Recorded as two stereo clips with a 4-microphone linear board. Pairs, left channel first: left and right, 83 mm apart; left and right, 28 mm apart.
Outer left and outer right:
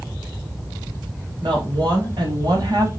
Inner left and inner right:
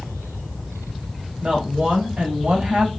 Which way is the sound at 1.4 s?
60° right (ahead or behind).